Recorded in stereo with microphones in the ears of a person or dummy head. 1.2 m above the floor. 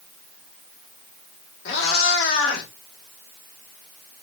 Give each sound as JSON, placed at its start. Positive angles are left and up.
{"t": 1.6, "sound": "a cat meowing", "side_deg": 65, "distance_m": 1.1}